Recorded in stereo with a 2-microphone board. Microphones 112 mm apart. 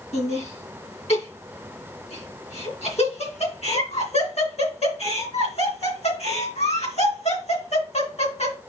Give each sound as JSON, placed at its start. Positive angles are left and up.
{"t": 0.1, "sound": "laughter", "side_deg": 70, "distance_m": 3.0}